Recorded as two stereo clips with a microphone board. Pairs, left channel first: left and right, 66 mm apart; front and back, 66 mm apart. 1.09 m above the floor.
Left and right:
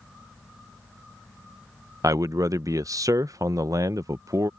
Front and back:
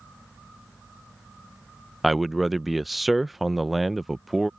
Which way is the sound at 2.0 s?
90° right.